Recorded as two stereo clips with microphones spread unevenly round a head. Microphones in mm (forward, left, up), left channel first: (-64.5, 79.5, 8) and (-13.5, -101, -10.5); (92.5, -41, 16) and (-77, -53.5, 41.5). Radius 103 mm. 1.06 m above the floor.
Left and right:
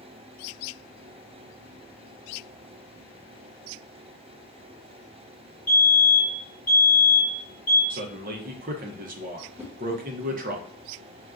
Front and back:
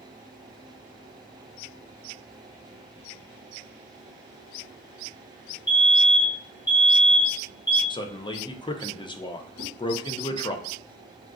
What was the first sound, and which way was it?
A fire alarm, 20° left.